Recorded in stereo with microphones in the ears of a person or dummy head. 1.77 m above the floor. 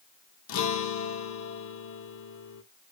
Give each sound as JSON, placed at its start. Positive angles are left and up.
{"t": 0.5, "sound": "a guitar", "side_deg": 75, "distance_m": 0.9}